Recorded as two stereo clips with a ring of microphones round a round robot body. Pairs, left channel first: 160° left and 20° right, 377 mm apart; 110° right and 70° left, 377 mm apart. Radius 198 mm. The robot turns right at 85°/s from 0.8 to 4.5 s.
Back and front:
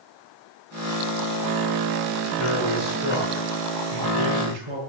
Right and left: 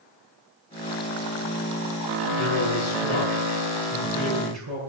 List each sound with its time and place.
2.4 s a man speaking: 170° right, 7 m; by 4.8 s 15° left, 7 m